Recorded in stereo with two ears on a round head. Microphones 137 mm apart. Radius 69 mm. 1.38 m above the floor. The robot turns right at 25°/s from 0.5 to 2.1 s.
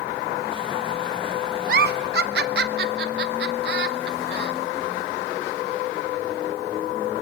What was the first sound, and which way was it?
A giggle, 65° right (ahead or behind).